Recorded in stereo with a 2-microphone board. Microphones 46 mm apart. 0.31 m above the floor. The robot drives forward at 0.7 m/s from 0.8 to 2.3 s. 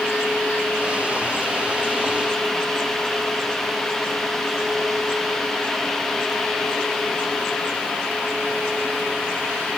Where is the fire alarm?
I don't hear a fire alarm.